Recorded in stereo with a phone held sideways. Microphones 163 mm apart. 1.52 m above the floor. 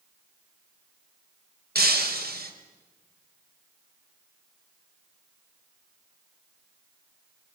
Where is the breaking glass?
70° right (ahead or behind), 3 m.